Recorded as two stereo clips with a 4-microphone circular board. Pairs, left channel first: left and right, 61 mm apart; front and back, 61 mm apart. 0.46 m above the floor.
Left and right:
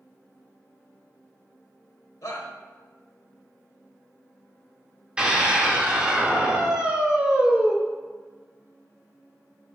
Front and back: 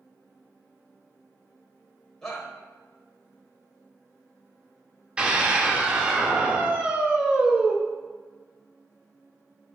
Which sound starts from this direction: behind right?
A scream, at 5.2 s.